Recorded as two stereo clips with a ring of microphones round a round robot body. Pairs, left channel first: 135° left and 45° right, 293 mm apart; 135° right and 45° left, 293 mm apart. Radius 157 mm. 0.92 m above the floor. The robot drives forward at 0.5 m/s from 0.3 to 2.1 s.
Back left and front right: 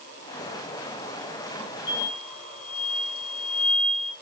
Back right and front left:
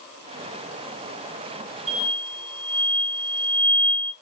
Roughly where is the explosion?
Behind left.